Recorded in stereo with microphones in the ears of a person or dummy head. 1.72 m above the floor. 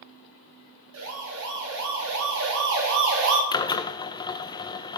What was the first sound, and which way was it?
A siren, 75° right (ahead or behind).